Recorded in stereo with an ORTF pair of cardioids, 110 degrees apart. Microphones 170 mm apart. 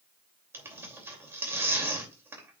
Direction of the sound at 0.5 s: 15° right.